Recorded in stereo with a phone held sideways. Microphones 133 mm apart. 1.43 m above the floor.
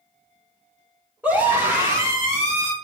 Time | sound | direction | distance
1.2 | a scream | 15° right (ahead or behind) | 2.5 m